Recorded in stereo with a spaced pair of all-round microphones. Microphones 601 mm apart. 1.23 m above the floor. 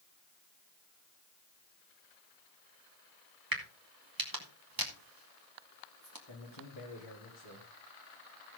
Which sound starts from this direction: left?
A man speaking, at 6.3 s.